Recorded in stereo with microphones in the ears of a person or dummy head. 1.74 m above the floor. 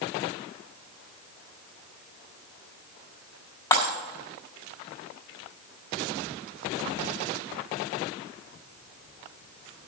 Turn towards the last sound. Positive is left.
turn(degrees=15)  # may be behind; listen again after turning